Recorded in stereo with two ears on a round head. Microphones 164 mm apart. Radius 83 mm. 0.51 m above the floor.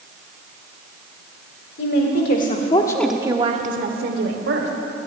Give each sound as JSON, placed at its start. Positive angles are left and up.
{"t": 1.8, "sound": "a woman speaking", "side_deg": 65, "distance_m": 2.0}